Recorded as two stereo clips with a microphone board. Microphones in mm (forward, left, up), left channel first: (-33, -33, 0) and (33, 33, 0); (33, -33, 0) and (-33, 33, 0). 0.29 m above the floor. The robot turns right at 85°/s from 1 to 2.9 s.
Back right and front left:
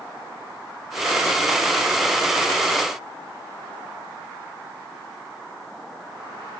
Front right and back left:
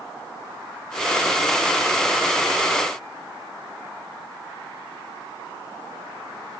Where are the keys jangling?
No keys jangling in this recording.